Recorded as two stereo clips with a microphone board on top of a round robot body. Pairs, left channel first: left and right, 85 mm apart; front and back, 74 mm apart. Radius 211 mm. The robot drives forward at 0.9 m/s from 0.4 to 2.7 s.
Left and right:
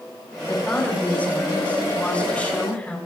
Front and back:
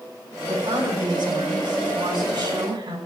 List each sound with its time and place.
0.5 s a woman speaking: 165° left, 7.5 m